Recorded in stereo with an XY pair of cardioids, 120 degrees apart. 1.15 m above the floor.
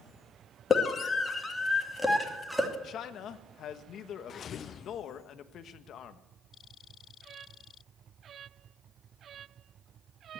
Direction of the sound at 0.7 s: 35° left.